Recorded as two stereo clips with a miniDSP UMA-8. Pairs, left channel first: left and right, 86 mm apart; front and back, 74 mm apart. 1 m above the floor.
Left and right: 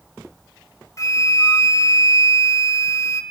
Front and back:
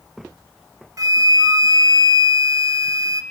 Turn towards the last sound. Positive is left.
turn(degrees=140)